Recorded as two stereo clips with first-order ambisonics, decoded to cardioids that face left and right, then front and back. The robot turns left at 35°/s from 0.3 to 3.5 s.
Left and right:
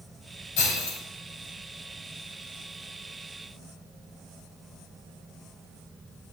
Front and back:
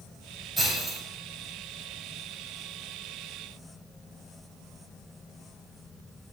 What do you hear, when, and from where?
0.6 s breaking glass: 90° left, 5 m; by 1.0 s 75° left, 5 m